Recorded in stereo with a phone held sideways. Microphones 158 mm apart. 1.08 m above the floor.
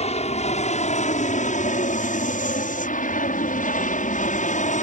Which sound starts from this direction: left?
An aircraft, at 0.0 s.